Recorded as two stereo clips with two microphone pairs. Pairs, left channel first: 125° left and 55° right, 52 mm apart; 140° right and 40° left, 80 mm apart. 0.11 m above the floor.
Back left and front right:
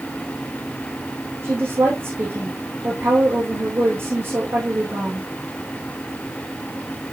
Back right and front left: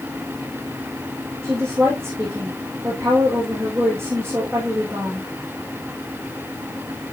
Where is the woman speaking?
15° right, 6.5 m.